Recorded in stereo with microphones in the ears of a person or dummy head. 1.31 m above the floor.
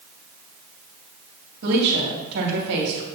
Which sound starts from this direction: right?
A woman speaking, at 1.6 s.